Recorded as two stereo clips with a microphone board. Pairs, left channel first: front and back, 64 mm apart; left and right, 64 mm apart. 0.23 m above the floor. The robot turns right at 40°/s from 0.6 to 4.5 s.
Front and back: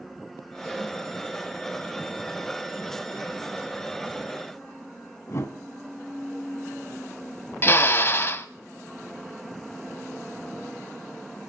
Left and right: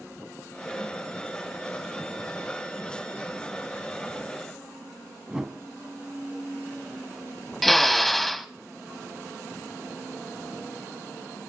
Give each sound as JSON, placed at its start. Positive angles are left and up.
{"t": 5.3, "sound": "a whoosh", "azimuth_deg": -15, "distance_m": 1.0}
{"t": 7.6, "sound": "a drill", "azimuth_deg": 5, "distance_m": 0.5}